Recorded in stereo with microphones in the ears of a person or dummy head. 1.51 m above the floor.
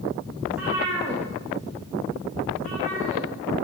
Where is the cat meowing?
Centre (ahead or behind), 0.8 m; by 3.2 s 35° right (ahead or behind), 2 m.